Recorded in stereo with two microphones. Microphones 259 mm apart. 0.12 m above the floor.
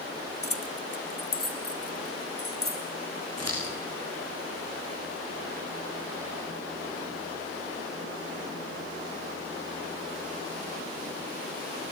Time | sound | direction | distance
0.4 | keys jangling | 60° left (ahead or behind) | 1.9 m
3.4 | scissors | 70° right (ahead or behind) | 8.5 m